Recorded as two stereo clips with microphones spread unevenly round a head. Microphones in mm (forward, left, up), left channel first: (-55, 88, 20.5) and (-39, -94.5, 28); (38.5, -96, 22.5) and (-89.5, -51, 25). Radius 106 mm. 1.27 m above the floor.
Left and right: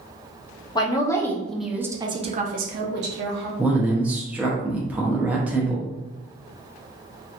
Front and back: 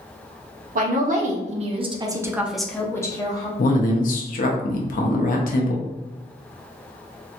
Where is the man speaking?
Straight ahead, 0.5 m.